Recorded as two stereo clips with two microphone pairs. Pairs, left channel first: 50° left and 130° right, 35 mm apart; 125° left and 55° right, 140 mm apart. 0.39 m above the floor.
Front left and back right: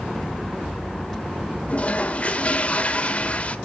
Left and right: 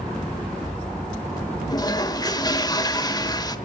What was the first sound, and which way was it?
A toilet flushing, 75° left.